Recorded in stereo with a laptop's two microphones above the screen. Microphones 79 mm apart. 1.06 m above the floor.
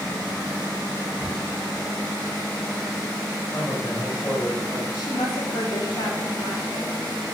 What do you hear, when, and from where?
3.5 s a man speaking: 30° left (ahead or behind), 4 m; by 4.8 s 40° left (ahead or behind), 4.5 m
4.9 s a woman speaking: 75° left (ahead or behind), 3.5 m